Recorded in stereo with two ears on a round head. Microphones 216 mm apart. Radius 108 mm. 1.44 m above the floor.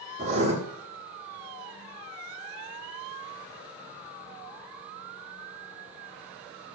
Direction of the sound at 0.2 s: 30° right (ahead or behind).